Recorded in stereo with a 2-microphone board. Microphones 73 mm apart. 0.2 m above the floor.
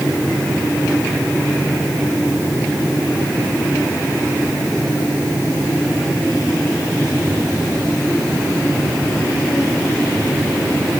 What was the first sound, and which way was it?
Only background noise.